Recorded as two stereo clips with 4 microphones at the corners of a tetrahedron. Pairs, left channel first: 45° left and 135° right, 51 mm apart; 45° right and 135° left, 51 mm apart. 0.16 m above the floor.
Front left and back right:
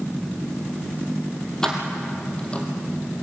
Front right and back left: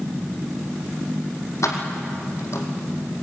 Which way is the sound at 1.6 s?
35° right.